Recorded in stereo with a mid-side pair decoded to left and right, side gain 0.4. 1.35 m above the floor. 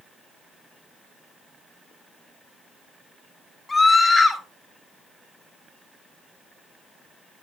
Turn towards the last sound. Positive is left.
turn(degrees=30)